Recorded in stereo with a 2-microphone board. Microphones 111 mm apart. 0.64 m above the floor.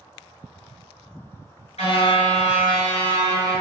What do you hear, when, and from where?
1.8 s a car horn: 75° left (ahead or behind), 5.5 m; by 3.6 s 85° left, 6 m